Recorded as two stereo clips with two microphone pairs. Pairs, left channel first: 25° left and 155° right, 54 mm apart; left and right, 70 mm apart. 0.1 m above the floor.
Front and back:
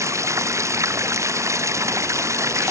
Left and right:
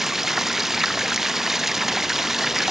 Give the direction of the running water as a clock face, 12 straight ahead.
6 o'clock.